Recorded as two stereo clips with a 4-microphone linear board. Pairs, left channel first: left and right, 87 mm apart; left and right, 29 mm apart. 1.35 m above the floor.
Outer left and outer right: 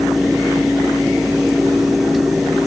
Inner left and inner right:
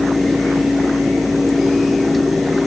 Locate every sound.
Only background noise.